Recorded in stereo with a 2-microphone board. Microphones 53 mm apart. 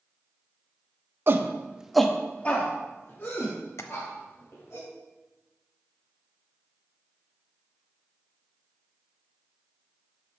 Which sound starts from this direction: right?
A shout, at 1.3 s.